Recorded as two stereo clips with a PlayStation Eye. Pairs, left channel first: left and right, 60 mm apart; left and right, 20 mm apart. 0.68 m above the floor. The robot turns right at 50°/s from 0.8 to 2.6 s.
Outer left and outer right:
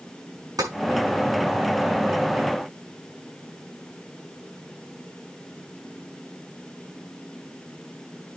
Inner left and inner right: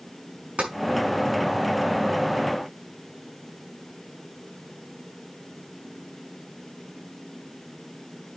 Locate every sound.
0.6 s tapping: 85° right, 5.5 m